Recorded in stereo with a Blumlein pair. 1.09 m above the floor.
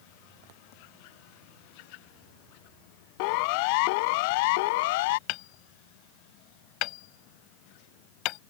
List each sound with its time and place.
3.2 s a siren: 45° left; by 5.2 s 50° left
5.3 s hammering: 40° left